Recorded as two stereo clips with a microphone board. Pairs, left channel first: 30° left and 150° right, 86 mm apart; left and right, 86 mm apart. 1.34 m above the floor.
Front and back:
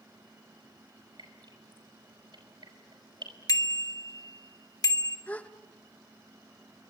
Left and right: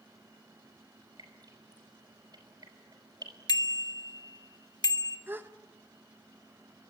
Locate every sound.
1.2 s dripping: 125° right, 5.5 m
3.5 s a bicycle bell: 65° left, 2 m
5.3 s a gasp: 35° right, 1.2 m